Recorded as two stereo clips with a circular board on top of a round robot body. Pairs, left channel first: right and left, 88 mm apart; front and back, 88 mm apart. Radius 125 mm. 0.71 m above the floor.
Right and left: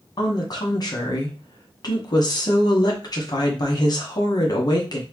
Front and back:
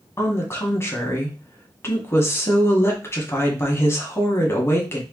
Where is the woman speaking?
55° right, 1.5 m.